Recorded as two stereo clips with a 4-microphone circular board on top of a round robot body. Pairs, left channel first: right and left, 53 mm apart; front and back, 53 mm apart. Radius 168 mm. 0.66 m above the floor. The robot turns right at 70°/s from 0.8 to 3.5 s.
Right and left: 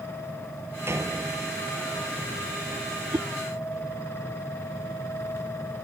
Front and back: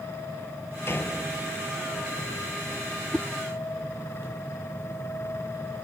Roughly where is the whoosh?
Left.